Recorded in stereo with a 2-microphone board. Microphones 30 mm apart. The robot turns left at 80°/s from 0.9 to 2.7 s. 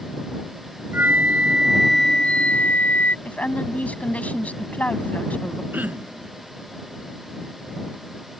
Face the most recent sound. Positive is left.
turn(degrees=-80)